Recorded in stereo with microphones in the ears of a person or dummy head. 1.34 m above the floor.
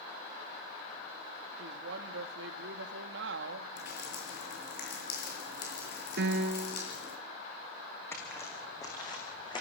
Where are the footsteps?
15° left (ahead or behind), 5 m; by 9.6 s 30° left (ahead or behind), 6 m.